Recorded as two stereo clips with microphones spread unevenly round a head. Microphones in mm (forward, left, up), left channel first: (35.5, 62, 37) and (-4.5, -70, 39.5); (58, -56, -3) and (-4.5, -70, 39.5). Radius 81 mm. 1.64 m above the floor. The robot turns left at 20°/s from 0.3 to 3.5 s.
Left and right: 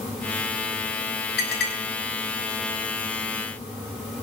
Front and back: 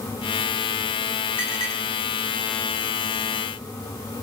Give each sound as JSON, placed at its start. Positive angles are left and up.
{"t": 1.4, "sound": "a clink", "azimuth_deg": 85, "distance_m": 6.5}